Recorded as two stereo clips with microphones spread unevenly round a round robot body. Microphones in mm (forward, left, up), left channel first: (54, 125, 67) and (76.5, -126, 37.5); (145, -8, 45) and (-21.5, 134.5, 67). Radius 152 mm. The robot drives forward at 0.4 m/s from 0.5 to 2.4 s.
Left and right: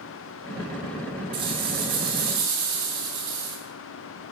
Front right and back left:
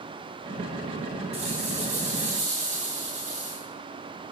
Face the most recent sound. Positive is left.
turn(degrees=-155)